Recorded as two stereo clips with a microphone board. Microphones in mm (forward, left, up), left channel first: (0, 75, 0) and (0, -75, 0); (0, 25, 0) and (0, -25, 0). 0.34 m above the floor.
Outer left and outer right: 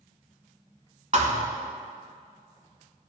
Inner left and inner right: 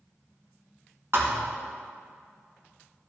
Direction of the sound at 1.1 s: 55° right (ahead or behind).